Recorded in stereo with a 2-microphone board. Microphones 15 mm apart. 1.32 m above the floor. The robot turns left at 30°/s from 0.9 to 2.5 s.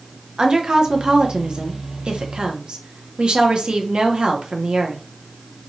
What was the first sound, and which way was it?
A woman speaking, 55° right.